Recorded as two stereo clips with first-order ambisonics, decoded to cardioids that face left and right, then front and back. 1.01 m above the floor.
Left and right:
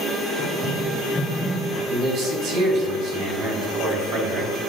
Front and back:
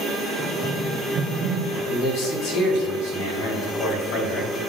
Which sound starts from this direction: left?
Running footsteps, at 0.4 s.